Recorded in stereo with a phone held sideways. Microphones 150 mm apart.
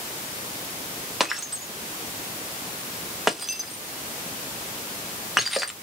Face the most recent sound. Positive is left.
turn(degrees=0)  # may be behind; listen again after turning